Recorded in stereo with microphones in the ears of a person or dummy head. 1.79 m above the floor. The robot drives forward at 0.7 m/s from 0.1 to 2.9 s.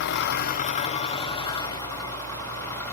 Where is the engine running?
60° left (ahead or behind), 0.8 m; by 2.9 s 15° left (ahead or behind), 2.5 m.